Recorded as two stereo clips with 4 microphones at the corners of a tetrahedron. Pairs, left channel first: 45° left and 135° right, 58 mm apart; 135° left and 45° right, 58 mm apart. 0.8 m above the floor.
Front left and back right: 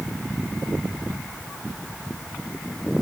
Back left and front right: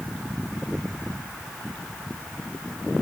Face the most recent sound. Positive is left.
No sound to turn to.